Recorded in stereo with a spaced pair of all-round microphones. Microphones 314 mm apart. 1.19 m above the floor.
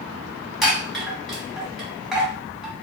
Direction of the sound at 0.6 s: Centre (ahead or behind).